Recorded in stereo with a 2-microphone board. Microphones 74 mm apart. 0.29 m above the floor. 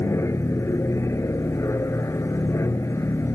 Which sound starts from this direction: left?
An aircraft, at 0.0 s.